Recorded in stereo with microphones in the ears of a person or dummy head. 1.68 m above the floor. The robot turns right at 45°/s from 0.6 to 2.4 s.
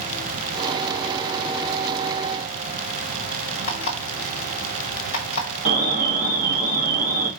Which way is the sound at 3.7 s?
40° left (ahead or behind).